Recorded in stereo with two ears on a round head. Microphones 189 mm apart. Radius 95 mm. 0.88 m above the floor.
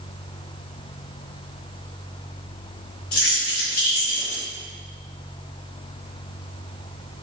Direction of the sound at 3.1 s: 75° left (ahead or behind).